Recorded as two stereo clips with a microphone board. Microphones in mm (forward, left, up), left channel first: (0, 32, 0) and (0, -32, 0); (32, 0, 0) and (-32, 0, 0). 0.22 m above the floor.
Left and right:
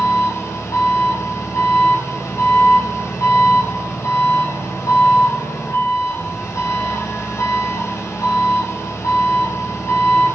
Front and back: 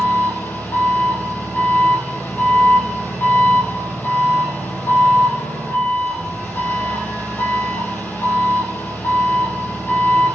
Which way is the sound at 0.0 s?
55° left.